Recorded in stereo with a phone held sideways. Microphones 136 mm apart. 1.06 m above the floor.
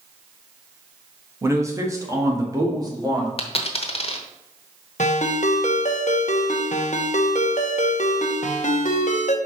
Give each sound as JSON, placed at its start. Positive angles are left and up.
{"t": 1.4, "sound": "a man speaking", "side_deg": -20, "distance_m": 1.2}
{"t": 3.4, "sound": "a dropped coin", "side_deg": 45, "distance_m": 1.0}
{"t": 5.0, "sound": "a ringtone", "side_deg": 65, "distance_m": 0.9}